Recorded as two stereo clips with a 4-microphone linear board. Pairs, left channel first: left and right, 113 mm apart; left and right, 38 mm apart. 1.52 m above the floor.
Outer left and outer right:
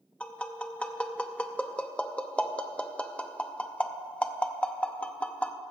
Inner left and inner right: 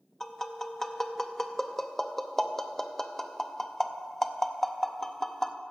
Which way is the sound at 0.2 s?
10° left (ahead or behind).